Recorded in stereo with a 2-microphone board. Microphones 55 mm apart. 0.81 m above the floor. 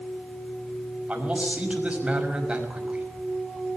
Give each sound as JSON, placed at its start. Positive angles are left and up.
{"t": 1.1, "sound": "a man speaking", "side_deg": -20, "distance_m": 5.5}